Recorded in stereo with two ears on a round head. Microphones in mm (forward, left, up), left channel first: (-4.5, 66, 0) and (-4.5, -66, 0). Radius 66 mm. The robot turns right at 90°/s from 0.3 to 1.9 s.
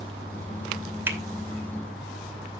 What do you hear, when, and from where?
1.1 s a finger snap: 15° right (ahead or behind), 2 m; by 1.2 s 5° right (ahead or behind), 2 m